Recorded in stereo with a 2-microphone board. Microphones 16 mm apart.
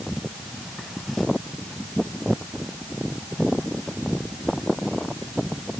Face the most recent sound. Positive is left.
No sound to turn to.